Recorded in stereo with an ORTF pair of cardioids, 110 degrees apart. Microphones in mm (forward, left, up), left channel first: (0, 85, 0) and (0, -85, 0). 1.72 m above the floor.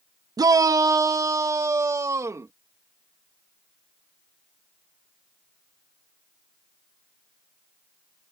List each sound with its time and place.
0.4 s a shout: 20° right; by 2.5 s 15° right